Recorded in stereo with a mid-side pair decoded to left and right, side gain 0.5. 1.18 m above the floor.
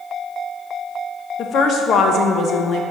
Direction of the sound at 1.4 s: 55° left.